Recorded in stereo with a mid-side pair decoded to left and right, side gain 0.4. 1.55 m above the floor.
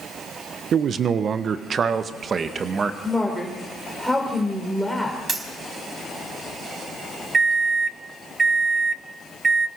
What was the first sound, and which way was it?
A man speaking, 60° right.